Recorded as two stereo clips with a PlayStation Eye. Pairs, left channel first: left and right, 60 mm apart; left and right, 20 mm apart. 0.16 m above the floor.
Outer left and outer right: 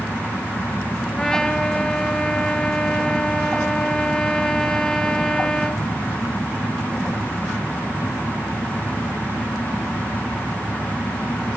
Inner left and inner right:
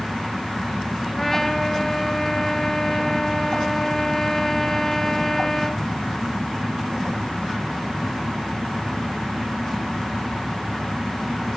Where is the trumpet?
10° left (ahead or behind), 1.9 m.